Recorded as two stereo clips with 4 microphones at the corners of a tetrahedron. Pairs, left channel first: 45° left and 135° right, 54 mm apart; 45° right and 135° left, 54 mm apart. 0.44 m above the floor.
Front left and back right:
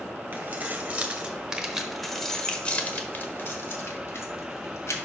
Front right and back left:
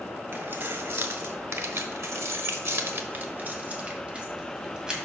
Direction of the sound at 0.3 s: 175° left.